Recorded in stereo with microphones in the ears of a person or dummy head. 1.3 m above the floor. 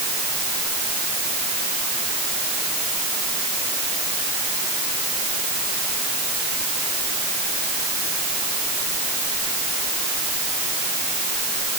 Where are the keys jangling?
No keys jangling in this recording.